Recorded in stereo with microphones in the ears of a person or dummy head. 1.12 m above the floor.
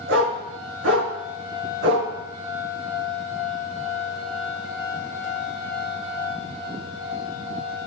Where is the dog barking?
75° right (ahead or behind), 5 m; by 2.1 s 55° right (ahead or behind), 4 m.